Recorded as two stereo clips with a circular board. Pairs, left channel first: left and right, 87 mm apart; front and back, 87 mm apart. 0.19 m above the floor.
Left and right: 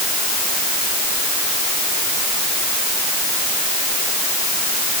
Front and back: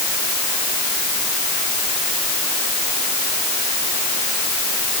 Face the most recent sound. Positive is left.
No sound to turn to.